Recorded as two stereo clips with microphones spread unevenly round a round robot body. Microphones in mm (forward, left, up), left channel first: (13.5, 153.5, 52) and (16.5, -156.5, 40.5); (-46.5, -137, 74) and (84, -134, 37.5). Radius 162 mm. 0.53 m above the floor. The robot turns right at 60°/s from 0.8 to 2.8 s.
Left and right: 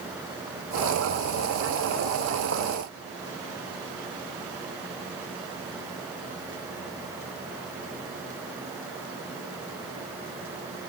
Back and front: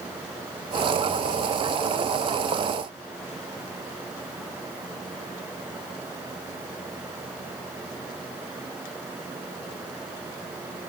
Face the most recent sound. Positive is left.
No sound to turn to.